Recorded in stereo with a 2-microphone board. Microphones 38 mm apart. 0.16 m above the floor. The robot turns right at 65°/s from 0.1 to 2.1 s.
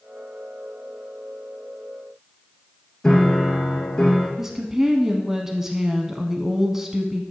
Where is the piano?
20° left (ahead or behind), 2 m.